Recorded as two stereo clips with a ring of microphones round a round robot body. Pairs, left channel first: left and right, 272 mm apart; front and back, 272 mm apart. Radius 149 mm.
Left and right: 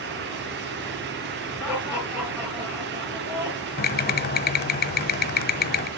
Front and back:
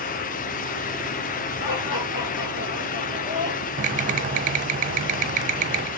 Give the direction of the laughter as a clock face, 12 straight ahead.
12 o'clock.